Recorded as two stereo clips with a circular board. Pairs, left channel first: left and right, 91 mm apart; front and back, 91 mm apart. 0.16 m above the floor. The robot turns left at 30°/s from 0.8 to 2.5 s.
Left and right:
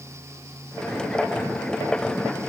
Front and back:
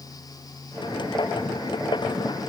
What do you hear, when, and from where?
Only background noise.